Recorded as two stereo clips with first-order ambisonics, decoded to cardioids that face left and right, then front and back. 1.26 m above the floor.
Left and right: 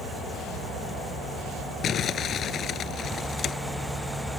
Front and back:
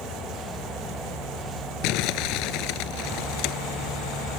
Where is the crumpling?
30° left.